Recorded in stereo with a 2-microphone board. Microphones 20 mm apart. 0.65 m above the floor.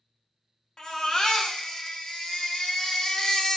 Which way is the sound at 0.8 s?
30° left (ahead or behind).